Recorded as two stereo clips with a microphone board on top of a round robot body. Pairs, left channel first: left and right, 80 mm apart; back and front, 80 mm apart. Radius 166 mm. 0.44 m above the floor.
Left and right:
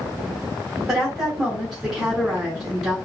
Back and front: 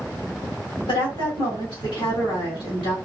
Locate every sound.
0.9 s a woman speaking: 170° right, 3 m